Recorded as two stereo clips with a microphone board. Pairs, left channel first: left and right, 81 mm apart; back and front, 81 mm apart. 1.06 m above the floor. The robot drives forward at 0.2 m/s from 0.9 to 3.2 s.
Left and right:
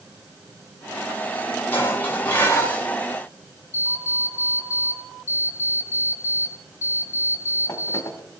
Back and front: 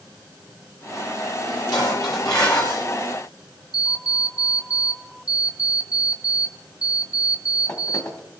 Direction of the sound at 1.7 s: 155° left.